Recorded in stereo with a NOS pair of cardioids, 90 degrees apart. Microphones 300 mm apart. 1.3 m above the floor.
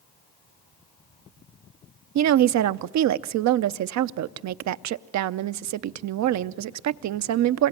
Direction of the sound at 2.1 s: 65° right.